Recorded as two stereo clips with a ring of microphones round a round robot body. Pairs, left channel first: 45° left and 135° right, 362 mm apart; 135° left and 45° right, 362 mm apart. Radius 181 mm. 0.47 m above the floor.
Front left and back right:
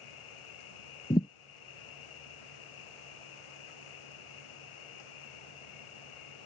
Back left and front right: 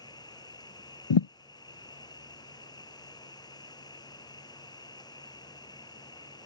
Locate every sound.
0.0 s an insect: 55° left
1.1 s a thud: 120° left